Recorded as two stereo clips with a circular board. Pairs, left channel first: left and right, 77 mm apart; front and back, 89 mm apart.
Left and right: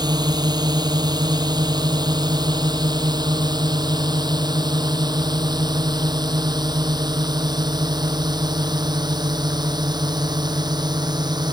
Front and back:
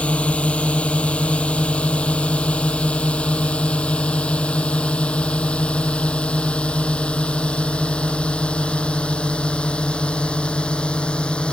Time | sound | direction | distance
0.0 | a drone | 75° right | ?